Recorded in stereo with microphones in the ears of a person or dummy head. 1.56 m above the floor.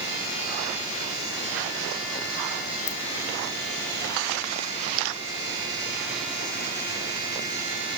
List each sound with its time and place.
2.9 s a ringtone: 45° left (ahead or behind), 0.5 m